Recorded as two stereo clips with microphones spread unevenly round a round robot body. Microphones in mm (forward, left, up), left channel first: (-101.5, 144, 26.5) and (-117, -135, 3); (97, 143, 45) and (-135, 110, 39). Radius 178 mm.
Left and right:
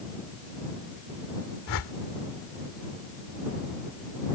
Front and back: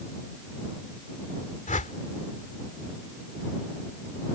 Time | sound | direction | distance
1.7 | a whoosh | 65° left | ?